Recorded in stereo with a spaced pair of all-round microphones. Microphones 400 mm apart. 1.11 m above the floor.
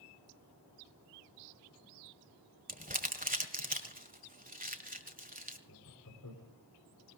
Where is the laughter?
50° left (ahead or behind), 3.5 m.